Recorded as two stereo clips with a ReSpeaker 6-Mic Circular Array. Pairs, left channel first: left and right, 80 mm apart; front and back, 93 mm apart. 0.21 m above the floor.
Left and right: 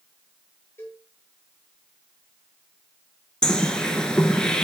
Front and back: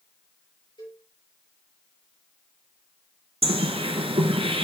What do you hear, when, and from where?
0.8 s a cowbell: 30° left, 4.5 m
3.4 s a bird: 170° left, 0.9 m